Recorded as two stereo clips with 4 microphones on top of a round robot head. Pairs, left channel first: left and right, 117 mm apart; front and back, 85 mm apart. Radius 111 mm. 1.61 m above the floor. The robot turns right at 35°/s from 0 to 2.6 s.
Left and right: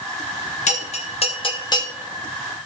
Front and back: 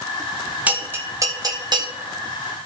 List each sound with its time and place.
0.7 s a bell: 105° left, 1.9 m; by 1.9 s 150° left, 1.9 m